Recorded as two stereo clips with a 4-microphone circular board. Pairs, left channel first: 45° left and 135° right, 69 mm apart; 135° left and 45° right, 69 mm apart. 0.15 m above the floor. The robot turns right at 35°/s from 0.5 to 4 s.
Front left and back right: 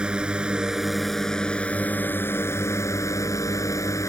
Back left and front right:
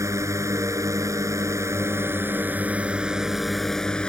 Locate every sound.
0.0 s a drone: 60° right; by 4.1 s 60° left